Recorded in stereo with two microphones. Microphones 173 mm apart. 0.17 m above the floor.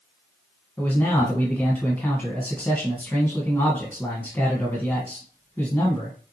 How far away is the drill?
No drill in this recording.